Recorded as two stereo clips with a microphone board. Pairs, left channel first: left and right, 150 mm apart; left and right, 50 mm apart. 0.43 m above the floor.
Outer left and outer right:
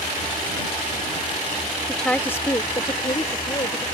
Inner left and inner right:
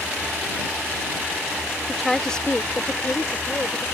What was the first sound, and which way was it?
A woman speaking, centre (ahead or behind).